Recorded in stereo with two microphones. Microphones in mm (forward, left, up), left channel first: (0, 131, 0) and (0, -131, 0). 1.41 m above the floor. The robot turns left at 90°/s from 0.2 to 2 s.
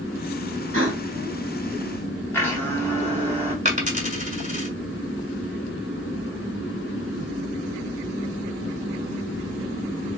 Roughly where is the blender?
Centre.